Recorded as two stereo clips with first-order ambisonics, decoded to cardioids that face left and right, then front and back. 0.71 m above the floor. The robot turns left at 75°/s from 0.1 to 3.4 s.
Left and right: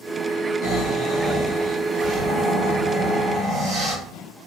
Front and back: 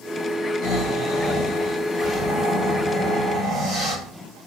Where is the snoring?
55° left, 1.3 m; by 4.0 s 155° right, 1.3 m.